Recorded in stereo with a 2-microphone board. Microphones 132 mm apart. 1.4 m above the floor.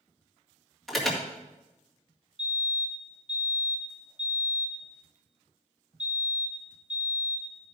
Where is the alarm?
Centre (ahead or behind), 2.0 m.